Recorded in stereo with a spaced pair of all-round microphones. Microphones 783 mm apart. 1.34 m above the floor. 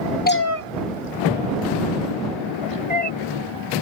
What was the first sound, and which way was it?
A cat meowing, 15° left (ahead or behind).